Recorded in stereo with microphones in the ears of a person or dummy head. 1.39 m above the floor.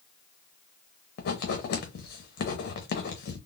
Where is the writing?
60° left (ahead or behind), 0.7 m.